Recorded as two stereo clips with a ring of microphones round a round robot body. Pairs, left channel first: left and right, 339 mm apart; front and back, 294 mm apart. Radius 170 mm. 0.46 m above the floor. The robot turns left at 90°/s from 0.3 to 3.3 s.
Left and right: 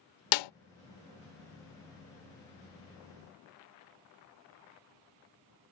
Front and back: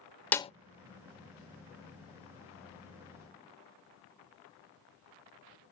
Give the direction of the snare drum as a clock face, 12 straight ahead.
9 o'clock.